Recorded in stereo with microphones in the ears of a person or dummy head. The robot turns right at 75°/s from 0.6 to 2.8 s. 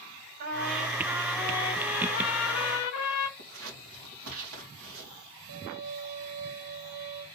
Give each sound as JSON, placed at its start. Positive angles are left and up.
{"t": 0.4, "sound": "a trumpet", "azimuth_deg": -55, "distance_m": 1.0}
{"t": 3.4, "sound": "scissors", "side_deg": -70, "distance_m": 1.9}
{"t": 5.5, "sound": "a violin", "side_deg": -50, "distance_m": 0.7}